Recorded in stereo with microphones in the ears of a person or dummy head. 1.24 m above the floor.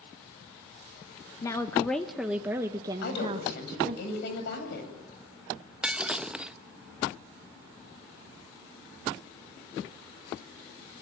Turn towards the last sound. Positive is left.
turn(degrees=-5)  # may be behind; listen again after turning